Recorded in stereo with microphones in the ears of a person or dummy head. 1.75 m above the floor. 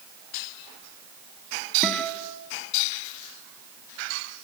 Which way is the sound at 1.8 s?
Centre (ahead or behind).